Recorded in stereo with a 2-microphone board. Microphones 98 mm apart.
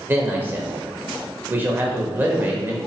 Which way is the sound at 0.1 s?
20° right (ahead or behind).